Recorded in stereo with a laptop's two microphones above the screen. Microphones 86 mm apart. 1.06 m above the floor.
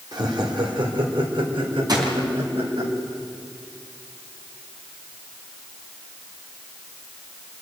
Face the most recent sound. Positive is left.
turn(degrees=-50)  # may be behind; listen again after turning